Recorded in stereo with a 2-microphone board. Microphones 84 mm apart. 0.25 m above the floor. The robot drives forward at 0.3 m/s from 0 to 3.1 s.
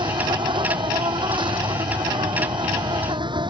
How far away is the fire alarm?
No fire alarm in this recording.